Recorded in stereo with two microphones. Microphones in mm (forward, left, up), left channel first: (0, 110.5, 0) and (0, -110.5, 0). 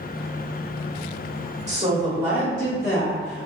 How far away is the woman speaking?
About 1.3 m.